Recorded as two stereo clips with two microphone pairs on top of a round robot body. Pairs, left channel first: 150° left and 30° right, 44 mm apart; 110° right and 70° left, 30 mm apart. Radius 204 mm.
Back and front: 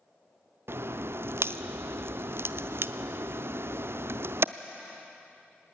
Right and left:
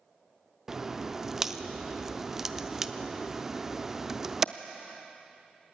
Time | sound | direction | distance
0.7 | a crack | 5° right | 0.6 m